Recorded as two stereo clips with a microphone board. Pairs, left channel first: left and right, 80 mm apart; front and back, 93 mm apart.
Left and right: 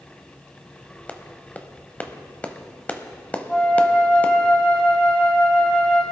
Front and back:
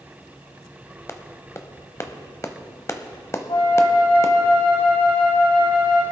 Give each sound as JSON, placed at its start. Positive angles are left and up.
{"t": 1.1, "sound": "a clap", "azimuth_deg": 30, "distance_m": 0.9}
{"t": 3.5, "sound": "a flute", "azimuth_deg": 15, "distance_m": 4.5}